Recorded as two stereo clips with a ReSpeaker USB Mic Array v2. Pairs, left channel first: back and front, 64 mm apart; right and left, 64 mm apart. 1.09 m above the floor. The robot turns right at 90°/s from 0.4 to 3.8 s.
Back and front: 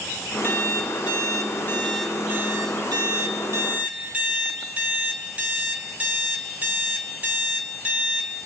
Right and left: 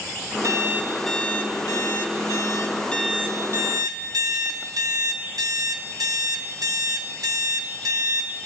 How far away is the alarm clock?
About 1.7 m.